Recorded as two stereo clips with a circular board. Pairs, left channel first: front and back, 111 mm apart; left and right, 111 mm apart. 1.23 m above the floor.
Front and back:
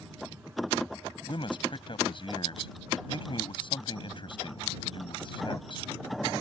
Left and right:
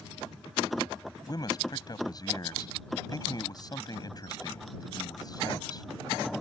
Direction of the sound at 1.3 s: 40° left.